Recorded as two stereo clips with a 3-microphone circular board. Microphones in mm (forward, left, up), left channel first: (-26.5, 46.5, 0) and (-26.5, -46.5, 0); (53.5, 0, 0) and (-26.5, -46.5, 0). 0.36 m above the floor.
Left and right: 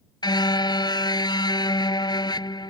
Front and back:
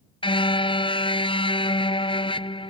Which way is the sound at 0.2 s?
50° left.